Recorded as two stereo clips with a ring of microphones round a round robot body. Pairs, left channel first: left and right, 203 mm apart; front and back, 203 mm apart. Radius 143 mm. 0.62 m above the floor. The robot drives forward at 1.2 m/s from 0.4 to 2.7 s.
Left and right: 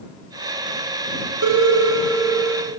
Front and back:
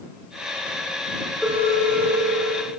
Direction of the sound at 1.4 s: 90° right.